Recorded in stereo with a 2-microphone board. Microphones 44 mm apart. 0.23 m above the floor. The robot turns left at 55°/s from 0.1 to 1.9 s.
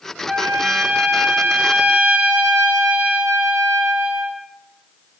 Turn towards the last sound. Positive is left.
turn(degrees=-120)